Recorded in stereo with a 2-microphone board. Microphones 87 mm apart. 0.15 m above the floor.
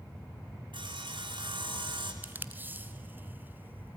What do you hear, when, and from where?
0.7 s sawing: 65° right (ahead or behind), 1.9 m
2.2 s tape being pulled: 20° right (ahead or behind), 0.9 m